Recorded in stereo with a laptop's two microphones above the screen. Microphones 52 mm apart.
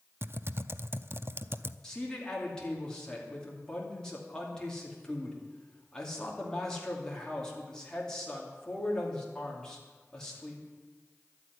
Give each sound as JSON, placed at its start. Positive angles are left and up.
{"t": 0.2, "sound": "typing on a keyboard", "side_deg": -45, "distance_m": 0.5}
{"t": 1.8, "sound": "a man speaking", "side_deg": 10, "distance_m": 2.5}